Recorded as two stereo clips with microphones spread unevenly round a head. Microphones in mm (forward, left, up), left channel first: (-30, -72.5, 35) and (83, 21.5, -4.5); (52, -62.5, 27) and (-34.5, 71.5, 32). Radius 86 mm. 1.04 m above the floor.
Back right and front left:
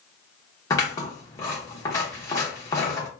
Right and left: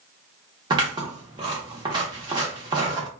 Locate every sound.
0.7 s scissors: 175° left, 0.7 m